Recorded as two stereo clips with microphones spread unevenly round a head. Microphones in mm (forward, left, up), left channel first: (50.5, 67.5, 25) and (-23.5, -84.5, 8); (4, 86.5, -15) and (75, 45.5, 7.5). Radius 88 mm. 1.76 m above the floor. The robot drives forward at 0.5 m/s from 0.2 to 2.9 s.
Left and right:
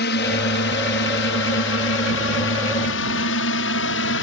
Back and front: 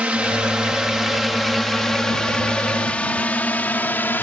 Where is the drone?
45° left; by 4.2 s 85° left.